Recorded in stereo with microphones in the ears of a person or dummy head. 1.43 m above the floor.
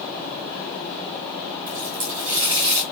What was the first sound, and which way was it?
A running tap, 65° right (ahead or behind).